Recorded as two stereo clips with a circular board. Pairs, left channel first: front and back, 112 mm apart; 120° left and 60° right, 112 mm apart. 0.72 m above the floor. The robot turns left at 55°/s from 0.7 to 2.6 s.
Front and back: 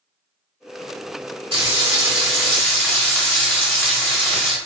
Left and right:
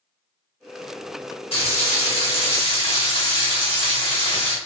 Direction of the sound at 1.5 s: 145° left.